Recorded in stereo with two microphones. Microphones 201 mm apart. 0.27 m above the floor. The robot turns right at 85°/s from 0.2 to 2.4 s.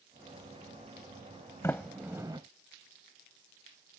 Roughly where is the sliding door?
Centre.